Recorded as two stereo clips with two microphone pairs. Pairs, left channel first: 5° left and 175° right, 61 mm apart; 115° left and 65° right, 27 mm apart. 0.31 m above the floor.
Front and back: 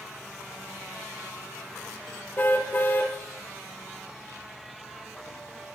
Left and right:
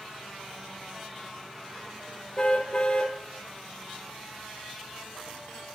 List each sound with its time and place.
2.4 s a car horn: 60° left, 4.5 m